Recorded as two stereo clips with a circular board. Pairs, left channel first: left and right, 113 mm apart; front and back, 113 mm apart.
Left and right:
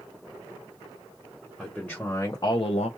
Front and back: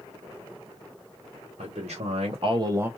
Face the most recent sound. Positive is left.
turn(degrees=105)